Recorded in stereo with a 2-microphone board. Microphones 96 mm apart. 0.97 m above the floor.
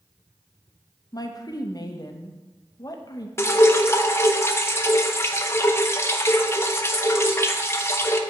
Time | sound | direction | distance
1.1 | a woman speaking | 40° left (ahead or behind) | 0.7 m
3.4 | dripping | 30° left (ahead or behind) | 0.5 m